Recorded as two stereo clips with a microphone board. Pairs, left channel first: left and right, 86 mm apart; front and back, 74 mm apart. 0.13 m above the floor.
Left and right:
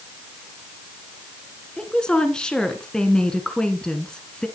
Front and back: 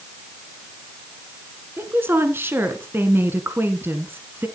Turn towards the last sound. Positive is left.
turn(degrees=165)